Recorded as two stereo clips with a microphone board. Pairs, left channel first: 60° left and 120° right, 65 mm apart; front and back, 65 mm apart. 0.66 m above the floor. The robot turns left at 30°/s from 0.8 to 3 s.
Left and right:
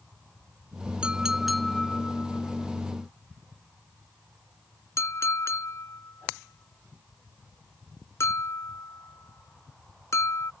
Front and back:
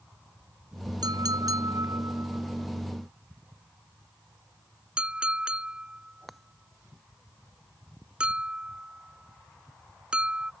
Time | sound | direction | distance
1.0 | a clink | 165° left | ?